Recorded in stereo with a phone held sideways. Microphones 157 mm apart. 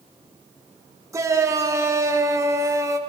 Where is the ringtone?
No ringtone in this recording.